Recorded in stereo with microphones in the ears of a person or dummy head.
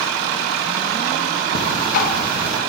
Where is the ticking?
50° left (ahead or behind), 0.8 m.